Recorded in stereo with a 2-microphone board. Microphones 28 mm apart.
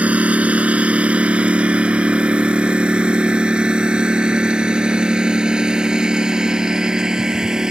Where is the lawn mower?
60° right (ahead or behind); by 7.7 s 30° right (ahead or behind).